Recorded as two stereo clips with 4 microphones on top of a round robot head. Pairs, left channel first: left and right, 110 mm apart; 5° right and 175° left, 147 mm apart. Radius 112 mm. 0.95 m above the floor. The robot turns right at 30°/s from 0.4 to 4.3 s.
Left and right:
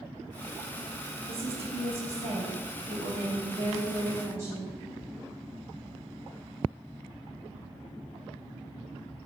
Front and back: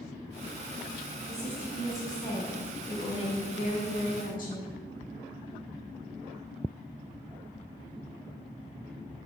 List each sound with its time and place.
1.3 s a woman speaking: 115° right, 1.1 m; by 4.7 s 25° right, 1.1 m